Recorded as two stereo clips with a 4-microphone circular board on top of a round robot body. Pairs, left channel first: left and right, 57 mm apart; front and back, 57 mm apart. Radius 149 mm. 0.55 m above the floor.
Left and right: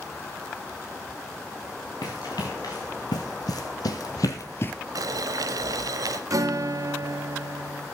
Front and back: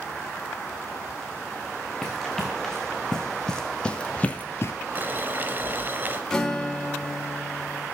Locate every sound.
2.0 s running footsteps: 85° left, 4.5 m; by 4.7 s 30° left, 0.6 m
5.0 s boiling: 115° right, 0.7 m
6.3 s a guitar: 80° right, 3.5 m